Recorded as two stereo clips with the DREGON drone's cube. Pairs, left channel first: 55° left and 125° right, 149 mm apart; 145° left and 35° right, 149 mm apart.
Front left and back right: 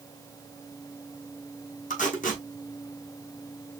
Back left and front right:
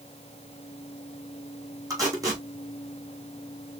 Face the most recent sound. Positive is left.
turn(degrees=30)